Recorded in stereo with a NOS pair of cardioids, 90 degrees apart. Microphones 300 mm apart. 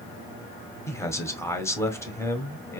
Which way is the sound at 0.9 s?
10° left.